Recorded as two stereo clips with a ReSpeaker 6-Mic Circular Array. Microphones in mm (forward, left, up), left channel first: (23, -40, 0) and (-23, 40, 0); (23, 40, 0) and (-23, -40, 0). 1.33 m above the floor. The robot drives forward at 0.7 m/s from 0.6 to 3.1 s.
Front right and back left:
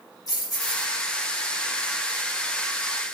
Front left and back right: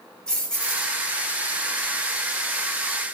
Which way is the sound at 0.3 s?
20° right.